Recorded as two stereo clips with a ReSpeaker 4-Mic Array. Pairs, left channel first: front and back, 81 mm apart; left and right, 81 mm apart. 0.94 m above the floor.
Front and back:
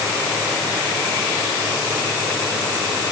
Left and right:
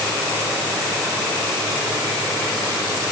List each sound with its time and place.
Only background noise.